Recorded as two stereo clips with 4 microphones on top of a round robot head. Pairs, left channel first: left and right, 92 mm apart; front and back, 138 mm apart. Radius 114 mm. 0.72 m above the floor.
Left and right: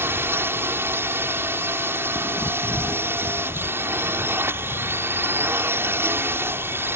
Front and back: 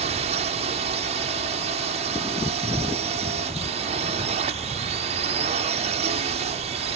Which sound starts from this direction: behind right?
A drone, at 0.0 s.